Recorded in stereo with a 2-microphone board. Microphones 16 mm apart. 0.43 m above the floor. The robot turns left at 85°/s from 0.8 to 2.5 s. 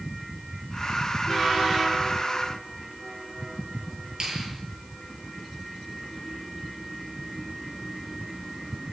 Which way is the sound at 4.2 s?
45° right (ahead or behind).